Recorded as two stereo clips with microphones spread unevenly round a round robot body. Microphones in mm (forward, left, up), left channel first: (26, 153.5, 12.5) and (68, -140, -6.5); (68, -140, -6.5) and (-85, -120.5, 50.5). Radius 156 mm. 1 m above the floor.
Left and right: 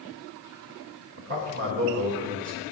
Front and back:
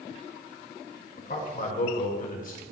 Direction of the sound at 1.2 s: 35° right.